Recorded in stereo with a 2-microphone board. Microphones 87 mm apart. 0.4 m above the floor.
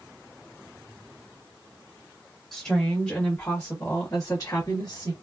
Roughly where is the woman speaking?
Centre.